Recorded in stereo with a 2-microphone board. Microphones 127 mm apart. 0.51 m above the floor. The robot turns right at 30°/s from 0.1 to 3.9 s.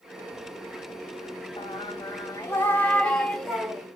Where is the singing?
125° left, 0.8 m; by 3.9 s 165° right, 0.8 m.